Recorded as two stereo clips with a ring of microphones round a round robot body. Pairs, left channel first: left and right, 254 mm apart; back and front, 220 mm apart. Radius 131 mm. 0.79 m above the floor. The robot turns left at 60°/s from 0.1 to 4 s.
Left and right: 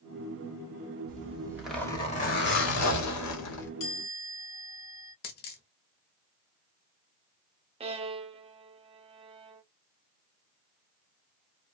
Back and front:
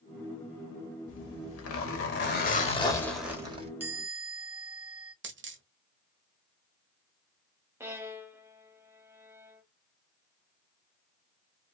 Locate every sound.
1.1 s a zipper: 145° right, 1.9 m; by 3.7 s 60° left, 1.9 m
3.8 s a chime: 80° left, 2 m; by 5.1 s 70° left, 2 m
5.2 s a dropped coin: 35° left, 1.1 m
7.8 s a violin: 65° right, 0.6 m